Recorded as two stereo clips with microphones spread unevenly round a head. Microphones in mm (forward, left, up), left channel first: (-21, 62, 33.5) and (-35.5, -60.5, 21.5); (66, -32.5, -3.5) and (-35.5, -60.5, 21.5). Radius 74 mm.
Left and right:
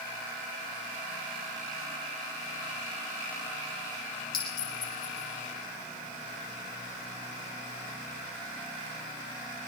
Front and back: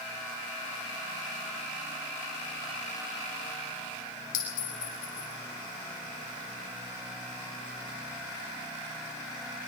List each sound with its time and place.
4.3 s a clink: 30° left, 4 m